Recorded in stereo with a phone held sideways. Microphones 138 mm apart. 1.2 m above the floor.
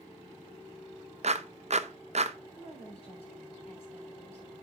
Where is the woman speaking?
45° left (ahead or behind), 5 m.